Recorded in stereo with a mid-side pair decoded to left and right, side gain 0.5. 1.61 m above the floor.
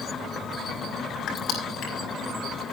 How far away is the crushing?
About 5.5 m.